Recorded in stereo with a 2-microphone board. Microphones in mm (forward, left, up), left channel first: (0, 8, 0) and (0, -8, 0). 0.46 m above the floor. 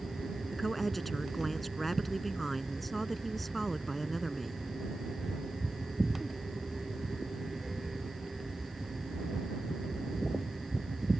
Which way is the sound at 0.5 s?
5° left (ahead or behind).